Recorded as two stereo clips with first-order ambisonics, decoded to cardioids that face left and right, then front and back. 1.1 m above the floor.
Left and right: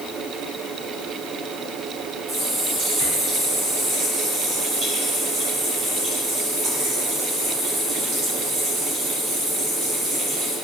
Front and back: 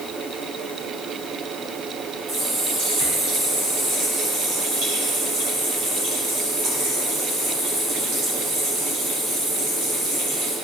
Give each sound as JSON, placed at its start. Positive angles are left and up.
{"t": 2.3, "sound": "a running tap", "azimuth_deg": -140, "distance_m": 5.0}